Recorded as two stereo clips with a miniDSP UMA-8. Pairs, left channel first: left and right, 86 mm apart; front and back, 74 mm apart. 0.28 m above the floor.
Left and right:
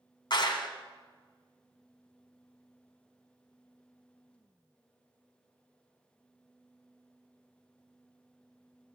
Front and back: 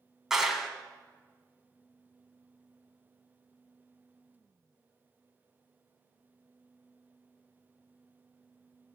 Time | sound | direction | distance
0.3 | a clap | 95° left | 1.7 m